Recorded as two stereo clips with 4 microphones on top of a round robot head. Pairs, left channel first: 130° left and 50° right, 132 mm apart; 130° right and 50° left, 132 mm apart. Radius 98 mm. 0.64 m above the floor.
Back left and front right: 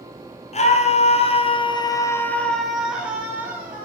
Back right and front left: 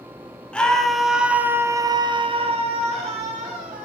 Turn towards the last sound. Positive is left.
turn(degrees=15)